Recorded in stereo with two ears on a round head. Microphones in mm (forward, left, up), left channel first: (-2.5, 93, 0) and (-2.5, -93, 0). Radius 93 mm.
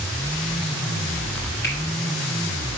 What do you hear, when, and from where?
1.6 s a finger snap: 60° left (ahead or behind), 3.5 m